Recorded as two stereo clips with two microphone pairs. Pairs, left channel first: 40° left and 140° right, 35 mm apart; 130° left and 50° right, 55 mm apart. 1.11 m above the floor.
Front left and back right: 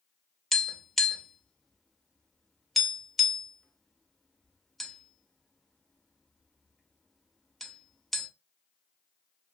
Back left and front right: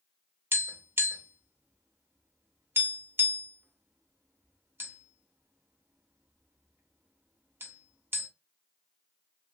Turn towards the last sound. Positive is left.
turn(degrees=-45)